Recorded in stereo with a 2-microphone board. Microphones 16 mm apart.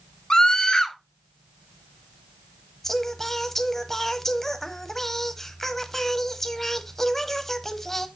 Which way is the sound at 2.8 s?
25° left (ahead or behind).